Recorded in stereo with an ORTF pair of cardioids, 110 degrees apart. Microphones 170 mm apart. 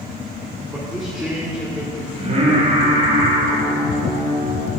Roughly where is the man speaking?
Ahead.